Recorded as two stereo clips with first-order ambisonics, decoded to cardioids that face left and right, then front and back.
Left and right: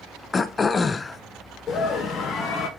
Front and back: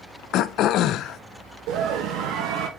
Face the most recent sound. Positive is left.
turn(degrees=155)